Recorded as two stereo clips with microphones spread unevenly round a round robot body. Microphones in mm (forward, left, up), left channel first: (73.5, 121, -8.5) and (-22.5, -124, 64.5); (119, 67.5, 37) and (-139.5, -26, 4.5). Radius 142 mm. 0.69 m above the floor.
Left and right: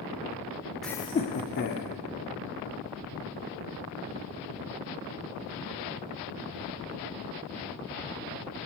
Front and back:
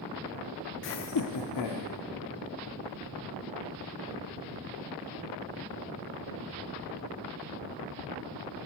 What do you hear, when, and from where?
0.8 s laughter: 5° left, 0.5 m; by 1.9 s 25° left, 1.5 m